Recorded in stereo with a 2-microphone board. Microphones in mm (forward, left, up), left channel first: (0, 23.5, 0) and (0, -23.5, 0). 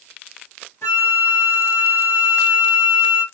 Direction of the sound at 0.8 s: 70° left (ahead or behind).